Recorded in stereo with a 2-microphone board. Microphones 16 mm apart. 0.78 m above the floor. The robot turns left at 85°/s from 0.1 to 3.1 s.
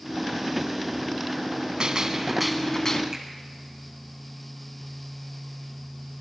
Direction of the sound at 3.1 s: 35° right (ahead or behind).